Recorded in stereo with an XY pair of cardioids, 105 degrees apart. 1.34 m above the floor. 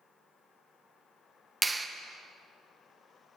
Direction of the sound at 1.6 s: 20° right.